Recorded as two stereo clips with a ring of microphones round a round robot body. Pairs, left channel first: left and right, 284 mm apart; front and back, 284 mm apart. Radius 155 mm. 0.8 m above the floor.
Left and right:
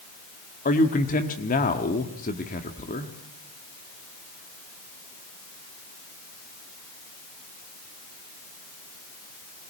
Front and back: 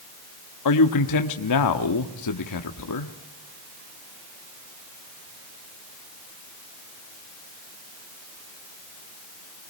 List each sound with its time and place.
0.7 s a man speaking: 25° left, 1.4 m